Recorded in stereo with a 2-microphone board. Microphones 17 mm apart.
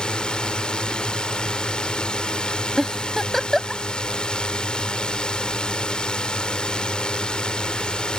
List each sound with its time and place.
0.0 s a drone: 65° left (ahead or behind)
2.8 s a giggle: 15° left (ahead or behind)